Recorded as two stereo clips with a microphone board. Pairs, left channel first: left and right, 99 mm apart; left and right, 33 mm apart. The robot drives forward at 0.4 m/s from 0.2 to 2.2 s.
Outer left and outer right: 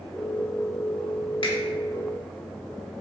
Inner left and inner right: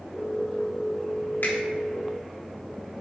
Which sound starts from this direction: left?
A finger snap, at 1.4 s.